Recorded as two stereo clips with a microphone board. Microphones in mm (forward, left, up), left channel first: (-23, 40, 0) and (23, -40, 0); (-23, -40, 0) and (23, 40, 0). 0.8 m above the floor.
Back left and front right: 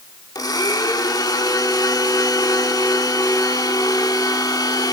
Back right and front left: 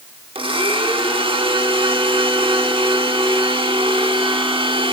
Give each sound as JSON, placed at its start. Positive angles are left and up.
{"t": 0.3, "sound": "a blender", "azimuth_deg": 75, "distance_m": 1.2}